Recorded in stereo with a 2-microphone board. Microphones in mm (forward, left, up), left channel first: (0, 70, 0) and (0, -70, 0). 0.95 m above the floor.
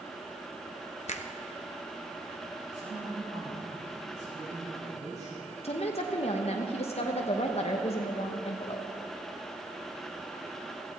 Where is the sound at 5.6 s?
45° left (ahead or behind), 1.0 m.